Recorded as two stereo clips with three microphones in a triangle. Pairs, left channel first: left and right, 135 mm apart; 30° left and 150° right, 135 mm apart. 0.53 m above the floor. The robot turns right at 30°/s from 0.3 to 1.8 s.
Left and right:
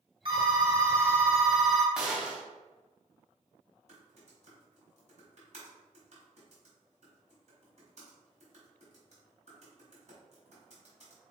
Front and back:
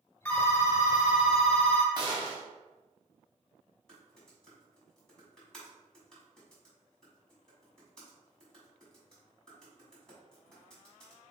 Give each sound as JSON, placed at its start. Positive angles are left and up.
{"t": 0.2, "sound": "a phone ringing", "azimuth_deg": -50, "distance_m": 1.3}
{"t": 1.9, "sound": "a gunshot", "azimuth_deg": -175, "distance_m": 1.1}
{"t": 3.9, "sound": "typing on a keyboard", "azimuth_deg": -55, "distance_m": 1.8}